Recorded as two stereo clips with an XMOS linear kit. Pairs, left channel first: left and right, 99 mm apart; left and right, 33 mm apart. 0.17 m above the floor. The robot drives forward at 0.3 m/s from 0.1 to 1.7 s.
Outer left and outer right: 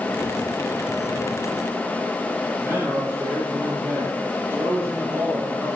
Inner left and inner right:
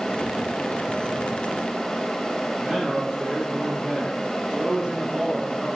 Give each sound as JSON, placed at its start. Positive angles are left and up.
{"t": 2.6, "sound": "a man speaking", "side_deg": -25, "distance_m": 5.5}